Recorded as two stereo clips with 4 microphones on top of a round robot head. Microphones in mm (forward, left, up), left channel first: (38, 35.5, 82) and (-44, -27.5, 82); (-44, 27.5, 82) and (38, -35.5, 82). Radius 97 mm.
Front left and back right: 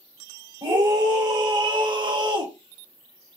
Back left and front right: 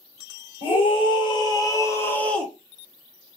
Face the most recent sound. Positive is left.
turn(degrees=-130)